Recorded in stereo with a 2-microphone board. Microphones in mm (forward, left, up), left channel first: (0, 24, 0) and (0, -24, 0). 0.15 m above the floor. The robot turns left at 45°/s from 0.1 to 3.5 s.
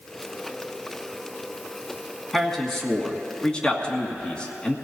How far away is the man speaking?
About 1.6 m.